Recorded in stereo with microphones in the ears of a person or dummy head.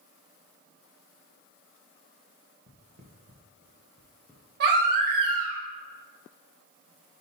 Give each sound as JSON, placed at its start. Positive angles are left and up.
{"t": 2.7, "sound": "footsteps", "side_deg": -40, "distance_m": 1.9}
{"t": 4.6, "sound": "a baby crying", "side_deg": -55, "distance_m": 1.5}